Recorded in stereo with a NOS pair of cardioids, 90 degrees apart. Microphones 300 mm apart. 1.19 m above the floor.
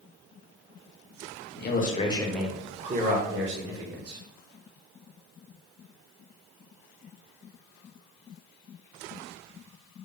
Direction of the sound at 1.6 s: 35° left.